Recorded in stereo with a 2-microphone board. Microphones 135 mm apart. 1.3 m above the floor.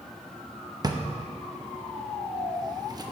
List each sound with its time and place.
0.8 s a drawer: 30° right (ahead or behind), 0.6 m